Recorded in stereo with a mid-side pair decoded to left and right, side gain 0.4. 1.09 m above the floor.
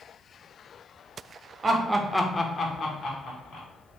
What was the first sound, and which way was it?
Laughter, 40° right.